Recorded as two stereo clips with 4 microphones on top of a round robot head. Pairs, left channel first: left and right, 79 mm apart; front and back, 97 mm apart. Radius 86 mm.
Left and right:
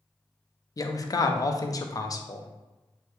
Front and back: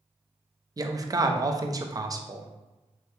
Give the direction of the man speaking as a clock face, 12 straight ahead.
8 o'clock.